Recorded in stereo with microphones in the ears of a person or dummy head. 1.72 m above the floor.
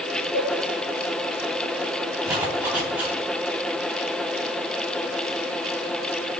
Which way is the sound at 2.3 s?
15° right (ahead or behind).